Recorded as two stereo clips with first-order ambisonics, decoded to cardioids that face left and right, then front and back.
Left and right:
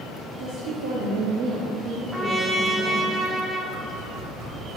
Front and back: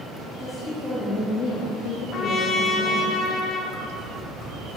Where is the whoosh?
45° right, 2.5 m.